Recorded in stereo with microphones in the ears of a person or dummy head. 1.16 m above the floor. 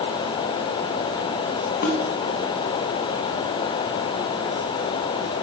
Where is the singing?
I don't hear singing.